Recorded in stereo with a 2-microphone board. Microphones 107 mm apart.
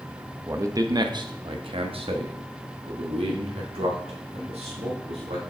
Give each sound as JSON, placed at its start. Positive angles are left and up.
{"t": 0.5, "sound": "a man speaking", "side_deg": -25, "distance_m": 0.9}